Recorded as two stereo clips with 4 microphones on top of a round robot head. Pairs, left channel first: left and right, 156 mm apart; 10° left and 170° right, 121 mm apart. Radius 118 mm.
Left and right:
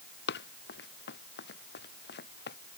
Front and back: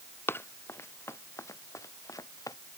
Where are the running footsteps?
80° left; by 2.6 s 70° left.